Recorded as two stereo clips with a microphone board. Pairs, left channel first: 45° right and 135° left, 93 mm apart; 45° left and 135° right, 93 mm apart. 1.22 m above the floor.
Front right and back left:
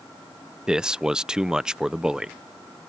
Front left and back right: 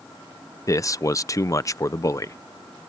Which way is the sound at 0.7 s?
60° left.